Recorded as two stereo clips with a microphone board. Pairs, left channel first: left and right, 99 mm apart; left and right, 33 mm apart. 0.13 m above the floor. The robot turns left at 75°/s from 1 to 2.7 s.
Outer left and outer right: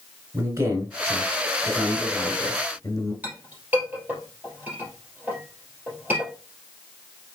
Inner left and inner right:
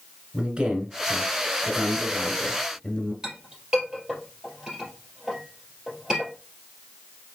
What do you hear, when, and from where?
0.3 s a man speaking: 125° right, 1.4 m; by 3.1 s 110° left, 1.4 m
3.2 s a clink: 20° right (ahead or behind), 2.5 m